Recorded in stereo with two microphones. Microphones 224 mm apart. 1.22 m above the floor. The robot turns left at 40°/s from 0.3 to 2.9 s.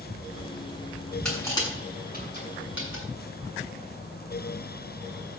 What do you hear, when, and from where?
1.2 s crushing: 5° left (ahead or behind), 7.5 m; by 3.0 s 70° left (ahead or behind), 7.5 m